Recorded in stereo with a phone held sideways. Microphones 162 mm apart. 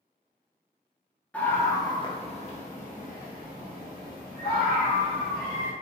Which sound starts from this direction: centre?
A scream, at 1.3 s.